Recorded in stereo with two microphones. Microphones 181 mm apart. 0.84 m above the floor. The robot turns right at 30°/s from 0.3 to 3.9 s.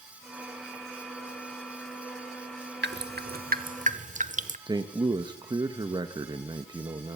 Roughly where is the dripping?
Right.